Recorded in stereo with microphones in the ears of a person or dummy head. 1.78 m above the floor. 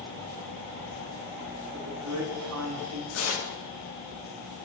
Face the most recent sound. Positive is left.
turn(degrees=80)